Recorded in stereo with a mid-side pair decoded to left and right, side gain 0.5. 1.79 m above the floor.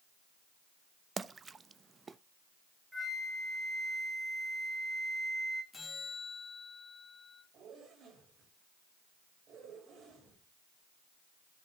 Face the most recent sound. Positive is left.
turn(degrees=-60)